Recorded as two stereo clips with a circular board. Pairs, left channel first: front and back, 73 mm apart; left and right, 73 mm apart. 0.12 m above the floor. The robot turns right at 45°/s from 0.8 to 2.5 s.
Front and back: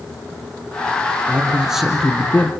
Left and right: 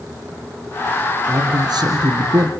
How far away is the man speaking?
About 2.5 m.